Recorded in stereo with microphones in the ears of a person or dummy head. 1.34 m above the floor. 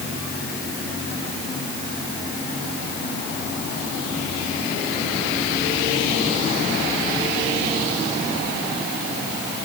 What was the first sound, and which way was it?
Only background noise.